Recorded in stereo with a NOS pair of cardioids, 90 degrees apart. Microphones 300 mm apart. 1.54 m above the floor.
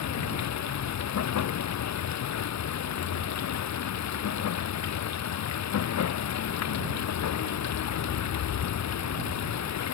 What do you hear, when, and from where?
0.0 s running water: 65° left